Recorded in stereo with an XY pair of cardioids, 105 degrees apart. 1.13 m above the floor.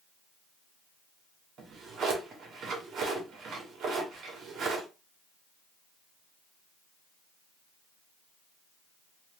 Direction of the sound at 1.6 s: 65° right.